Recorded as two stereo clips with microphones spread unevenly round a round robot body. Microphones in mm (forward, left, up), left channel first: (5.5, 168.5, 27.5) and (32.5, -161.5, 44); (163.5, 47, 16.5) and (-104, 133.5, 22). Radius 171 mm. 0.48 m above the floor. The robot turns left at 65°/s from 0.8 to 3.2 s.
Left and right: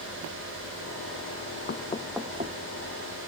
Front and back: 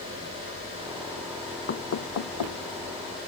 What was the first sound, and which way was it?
Knocking, 35° left.